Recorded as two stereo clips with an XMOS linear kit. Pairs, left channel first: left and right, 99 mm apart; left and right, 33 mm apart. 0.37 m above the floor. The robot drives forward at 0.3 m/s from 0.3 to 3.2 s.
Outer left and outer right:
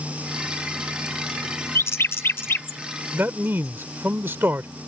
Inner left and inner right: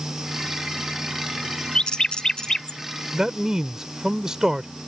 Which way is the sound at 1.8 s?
25° left (ahead or behind).